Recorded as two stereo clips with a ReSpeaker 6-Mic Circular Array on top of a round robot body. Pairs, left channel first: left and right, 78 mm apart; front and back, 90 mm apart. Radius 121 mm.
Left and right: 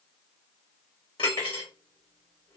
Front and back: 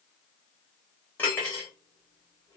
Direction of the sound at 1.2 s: 70° left.